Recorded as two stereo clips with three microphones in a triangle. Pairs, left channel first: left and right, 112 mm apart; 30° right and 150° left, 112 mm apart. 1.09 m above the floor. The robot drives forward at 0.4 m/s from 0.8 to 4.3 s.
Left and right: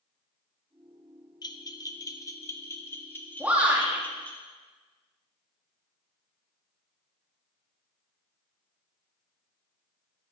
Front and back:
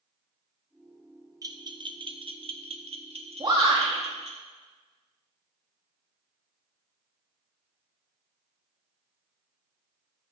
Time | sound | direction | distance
1.4 | a bell | 115° left | 0.6 m
3.4 | a shout | 165° right | 2 m